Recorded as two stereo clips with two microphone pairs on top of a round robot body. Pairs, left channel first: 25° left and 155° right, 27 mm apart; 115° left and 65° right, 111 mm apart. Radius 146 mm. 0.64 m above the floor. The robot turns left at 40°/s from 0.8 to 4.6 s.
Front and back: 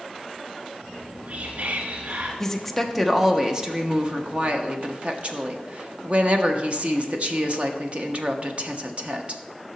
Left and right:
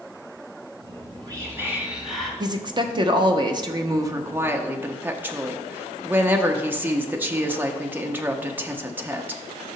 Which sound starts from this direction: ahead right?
A woman speaking, at 2.4 s.